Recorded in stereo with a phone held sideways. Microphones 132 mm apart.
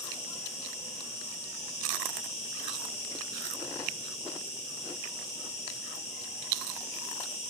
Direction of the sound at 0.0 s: 55° left (ahead or behind).